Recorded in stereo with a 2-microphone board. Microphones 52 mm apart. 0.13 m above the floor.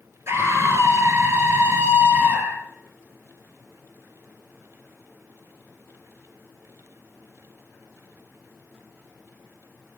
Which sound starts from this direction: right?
A scream, at 0.3 s.